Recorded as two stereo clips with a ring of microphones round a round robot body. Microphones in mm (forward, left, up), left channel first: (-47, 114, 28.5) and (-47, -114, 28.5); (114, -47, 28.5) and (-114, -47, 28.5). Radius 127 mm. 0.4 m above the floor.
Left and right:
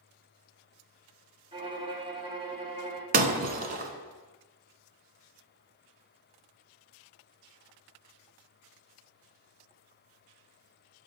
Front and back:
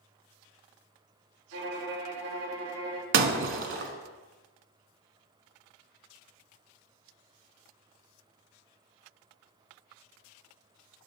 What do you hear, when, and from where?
1.5 s a violin: 160° right, 1.3 m
3.1 s breaking glass: 145° right, 0.9 m